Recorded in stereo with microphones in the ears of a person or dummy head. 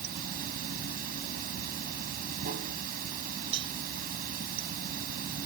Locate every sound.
0.0 s running water: 55° right (ahead or behind)
3.5 s a cowbell: 70° right (ahead or behind)